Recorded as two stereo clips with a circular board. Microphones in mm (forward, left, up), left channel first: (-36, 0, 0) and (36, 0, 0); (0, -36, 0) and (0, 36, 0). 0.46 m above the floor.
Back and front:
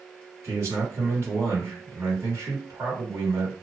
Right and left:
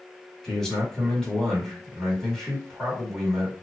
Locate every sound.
0.4 s a man speaking: 10° right, 1.8 m